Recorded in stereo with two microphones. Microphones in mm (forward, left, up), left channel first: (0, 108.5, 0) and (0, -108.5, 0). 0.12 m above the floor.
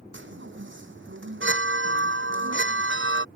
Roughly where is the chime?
Right.